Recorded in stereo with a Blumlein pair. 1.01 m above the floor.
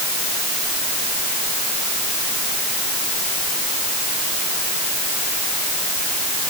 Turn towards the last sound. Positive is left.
No sound to turn to.